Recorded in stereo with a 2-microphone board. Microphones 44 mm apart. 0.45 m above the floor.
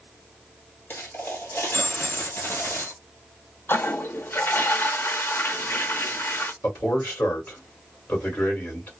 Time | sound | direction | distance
0.9 | a dropped coin | 55° left (ahead or behind) | 1.7 m
3.7 | a toilet flushing | 60° left (ahead or behind) | 0.5 m
6.6 | a man speaking | 50° left (ahead or behind) | 2 m